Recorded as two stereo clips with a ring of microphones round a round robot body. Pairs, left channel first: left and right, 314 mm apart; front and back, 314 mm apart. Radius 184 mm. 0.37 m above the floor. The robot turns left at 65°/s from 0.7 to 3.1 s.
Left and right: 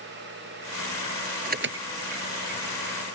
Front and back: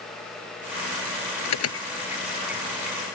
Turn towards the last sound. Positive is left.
turn(degrees=-135)